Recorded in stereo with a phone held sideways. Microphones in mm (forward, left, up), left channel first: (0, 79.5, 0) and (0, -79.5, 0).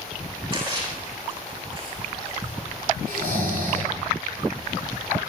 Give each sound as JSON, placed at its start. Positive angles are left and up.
{"t": 0.5, "sound": "a splash", "side_deg": -35, "distance_m": 7.0}
{"t": 3.1, "sound": "snoring", "side_deg": -85, "distance_m": 7.0}